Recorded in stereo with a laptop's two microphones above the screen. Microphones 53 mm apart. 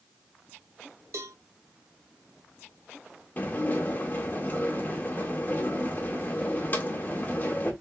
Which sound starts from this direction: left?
Dishes clattering, at 3.4 s.